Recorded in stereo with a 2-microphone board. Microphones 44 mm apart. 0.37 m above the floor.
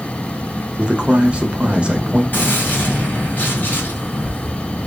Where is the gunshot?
45° left (ahead or behind), 1.7 m.